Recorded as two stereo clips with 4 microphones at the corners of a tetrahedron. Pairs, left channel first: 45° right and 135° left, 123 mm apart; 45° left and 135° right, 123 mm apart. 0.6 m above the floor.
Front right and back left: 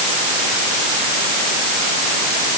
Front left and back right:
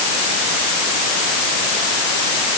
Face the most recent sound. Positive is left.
No sound to turn to.